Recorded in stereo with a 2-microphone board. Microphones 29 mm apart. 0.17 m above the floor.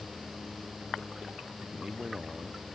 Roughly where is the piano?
No piano in this recording.